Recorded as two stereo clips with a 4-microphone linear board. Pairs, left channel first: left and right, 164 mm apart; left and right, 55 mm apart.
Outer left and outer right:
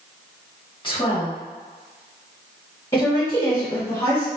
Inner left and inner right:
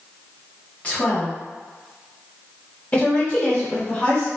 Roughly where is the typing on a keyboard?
I don't hear typing on a keyboard.